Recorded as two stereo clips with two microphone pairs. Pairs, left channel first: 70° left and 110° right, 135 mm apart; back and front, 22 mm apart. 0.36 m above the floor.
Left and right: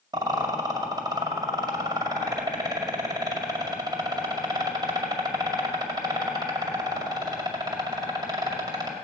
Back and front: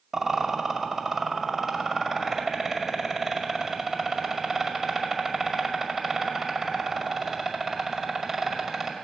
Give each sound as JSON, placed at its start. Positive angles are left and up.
{"t": 0.1, "sound": "a rattle", "azimuth_deg": -65, "distance_m": 2.0}